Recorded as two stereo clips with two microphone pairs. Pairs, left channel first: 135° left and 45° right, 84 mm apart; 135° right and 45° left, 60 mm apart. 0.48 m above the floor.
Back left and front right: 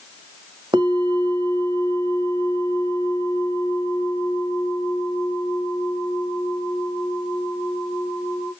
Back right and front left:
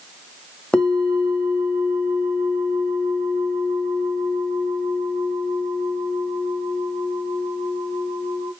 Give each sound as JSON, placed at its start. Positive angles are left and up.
{"t": 0.7, "sound": "a bell", "azimuth_deg": -60, "distance_m": 0.9}